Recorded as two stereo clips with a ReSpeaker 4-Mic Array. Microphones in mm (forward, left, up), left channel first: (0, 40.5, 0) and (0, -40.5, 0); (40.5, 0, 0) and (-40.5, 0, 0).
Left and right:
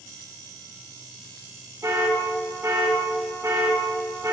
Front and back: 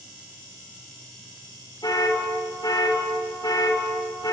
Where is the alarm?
35° right, 2.5 m.